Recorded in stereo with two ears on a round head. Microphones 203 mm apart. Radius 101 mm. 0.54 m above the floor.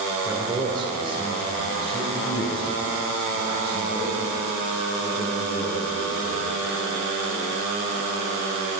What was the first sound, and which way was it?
A man speaking, 15° right (ahead or behind).